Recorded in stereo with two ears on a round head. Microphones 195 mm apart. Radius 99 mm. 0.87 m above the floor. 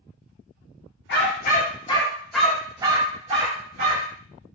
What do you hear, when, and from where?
1.1 s a dog barking: 55° left (ahead or behind), 0.8 m; by 4.2 s 45° right (ahead or behind), 1.3 m